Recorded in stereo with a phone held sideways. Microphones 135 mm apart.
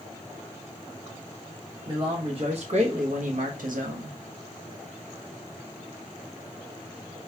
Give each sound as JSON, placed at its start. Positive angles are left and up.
{"t": 1.9, "sound": "a man speaking", "side_deg": -35, "distance_m": 1.2}